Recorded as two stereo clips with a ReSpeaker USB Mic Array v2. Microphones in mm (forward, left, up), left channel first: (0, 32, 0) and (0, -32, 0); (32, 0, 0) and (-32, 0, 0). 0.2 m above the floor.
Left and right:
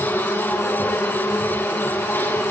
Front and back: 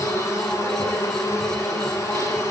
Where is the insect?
40° left, 5.5 m.